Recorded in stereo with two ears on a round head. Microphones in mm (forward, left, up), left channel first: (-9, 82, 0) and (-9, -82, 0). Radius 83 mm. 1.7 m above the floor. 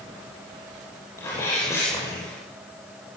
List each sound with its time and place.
1.2 s a sneeze: 15° left (ahead or behind), 9 m